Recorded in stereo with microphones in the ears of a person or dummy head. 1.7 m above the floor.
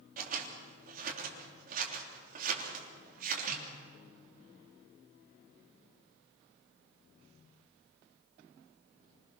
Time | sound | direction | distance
0.2 | scissors | 50° right (ahead or behind) | 3.5 m